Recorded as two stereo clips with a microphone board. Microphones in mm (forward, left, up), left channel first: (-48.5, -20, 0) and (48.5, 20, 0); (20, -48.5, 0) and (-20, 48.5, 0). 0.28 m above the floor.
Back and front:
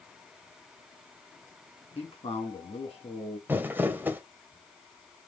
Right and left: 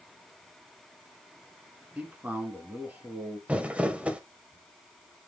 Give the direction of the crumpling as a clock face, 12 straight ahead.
10 o'clock.